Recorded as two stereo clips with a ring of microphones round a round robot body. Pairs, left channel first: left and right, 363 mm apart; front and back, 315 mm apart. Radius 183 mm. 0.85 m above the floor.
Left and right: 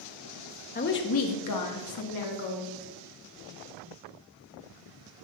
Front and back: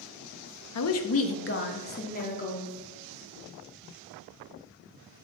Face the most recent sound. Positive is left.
turn(degrees=70)